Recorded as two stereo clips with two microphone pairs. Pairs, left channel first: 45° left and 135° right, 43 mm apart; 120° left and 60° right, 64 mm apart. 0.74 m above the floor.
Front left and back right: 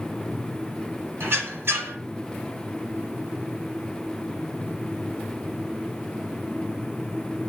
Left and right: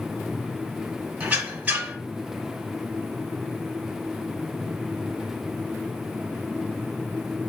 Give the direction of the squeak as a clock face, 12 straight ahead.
4 o'clock.